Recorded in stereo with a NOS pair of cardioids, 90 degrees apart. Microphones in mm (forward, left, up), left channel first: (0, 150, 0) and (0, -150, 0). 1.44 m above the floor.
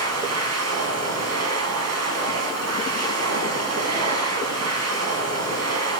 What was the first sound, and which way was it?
A machine running, 60° right.